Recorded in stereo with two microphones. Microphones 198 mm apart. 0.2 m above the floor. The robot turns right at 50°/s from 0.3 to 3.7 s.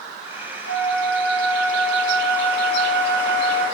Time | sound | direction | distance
0.7 | a flute | 165° right | 4 m